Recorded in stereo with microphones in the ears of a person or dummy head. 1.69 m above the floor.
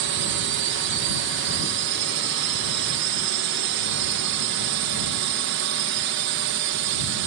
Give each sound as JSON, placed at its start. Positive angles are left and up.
{"t": 0.0, "sound": "a drone", "side_deg": -60}